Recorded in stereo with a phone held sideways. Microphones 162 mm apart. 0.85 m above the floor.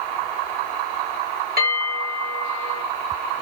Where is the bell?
70° right (ahead or behind), 1.3 m.